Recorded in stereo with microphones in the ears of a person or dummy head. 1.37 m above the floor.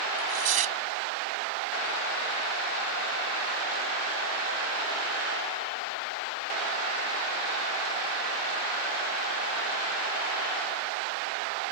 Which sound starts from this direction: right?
Tearing paper, at 0.1 s.